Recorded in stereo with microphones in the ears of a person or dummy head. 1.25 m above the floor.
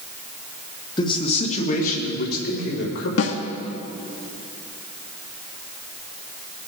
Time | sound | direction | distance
1.0 | a man speaking | 20° left (ahead or behind) | 1.7 m
3.2 | a snare drum | 70° left (ahead or behind) | 1.2 m